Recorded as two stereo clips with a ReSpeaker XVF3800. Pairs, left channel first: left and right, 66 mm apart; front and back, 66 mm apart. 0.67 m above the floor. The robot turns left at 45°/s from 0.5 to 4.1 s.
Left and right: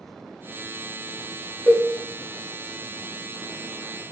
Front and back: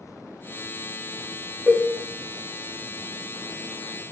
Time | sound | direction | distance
1.7 | a cowbell | 50° left | 0.6 m